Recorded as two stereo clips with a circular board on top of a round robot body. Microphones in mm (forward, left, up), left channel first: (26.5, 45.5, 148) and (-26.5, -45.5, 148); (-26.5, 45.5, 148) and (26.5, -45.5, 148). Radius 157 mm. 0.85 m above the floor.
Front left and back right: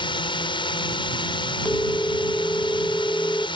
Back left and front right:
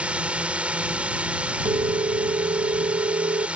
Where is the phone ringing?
15° right.